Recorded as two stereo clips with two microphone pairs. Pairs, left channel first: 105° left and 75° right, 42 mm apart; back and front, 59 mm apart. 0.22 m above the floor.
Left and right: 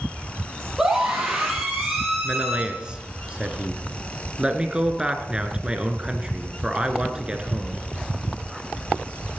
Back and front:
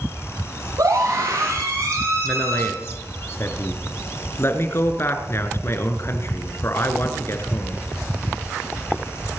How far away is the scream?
About 7 m.